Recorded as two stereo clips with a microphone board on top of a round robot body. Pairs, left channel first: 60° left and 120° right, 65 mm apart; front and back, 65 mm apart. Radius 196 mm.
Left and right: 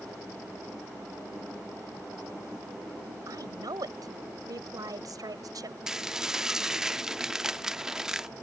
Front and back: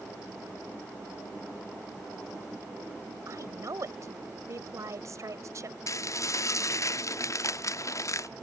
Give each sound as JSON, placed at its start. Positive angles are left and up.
{"t": 3.3, "sound": "a woman speaking", "azimuth_deg": -140}
{"t": 5.9, "sound": "dishes clattering", "azimuth_deg": -40}